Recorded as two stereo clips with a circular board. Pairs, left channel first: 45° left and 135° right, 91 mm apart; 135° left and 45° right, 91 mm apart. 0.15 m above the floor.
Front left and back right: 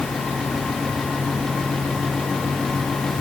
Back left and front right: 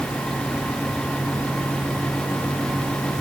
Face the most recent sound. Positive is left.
No sound to turn to.